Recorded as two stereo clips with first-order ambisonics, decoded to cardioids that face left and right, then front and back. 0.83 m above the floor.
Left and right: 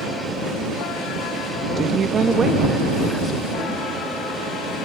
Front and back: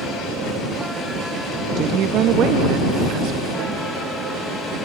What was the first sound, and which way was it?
A woman speaking, 135° right.